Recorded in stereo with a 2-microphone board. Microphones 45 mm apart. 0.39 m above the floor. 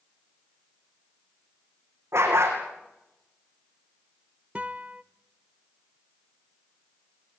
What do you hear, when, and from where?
2.1 s a dog barking: 90° right, 5 m
4.5 s a guitar: 25° right (ahead or behind), 0.8 m